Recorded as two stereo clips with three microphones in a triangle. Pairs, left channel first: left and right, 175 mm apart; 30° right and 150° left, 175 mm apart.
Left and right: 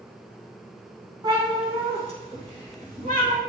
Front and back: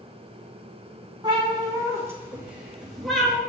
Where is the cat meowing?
150° right, 2.5 m; by 3.4 s 115° right, 3 m.